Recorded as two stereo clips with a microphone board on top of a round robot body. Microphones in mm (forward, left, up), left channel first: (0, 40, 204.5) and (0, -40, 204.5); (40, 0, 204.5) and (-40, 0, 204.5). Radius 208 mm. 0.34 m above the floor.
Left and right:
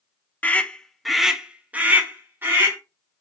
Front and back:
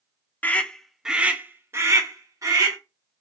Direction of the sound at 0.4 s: 45° left.